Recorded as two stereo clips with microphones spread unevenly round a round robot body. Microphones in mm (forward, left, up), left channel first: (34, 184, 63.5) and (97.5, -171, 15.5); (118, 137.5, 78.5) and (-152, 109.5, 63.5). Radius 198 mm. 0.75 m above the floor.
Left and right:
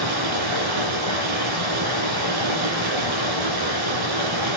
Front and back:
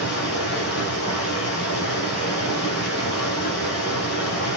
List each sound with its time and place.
0.0 s running water: 55° right, 7 m